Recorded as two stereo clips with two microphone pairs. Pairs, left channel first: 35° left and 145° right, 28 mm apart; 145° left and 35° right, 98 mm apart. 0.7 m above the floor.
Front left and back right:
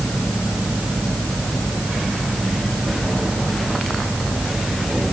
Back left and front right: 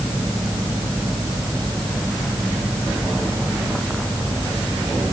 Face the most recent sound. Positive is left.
No sound to turn to.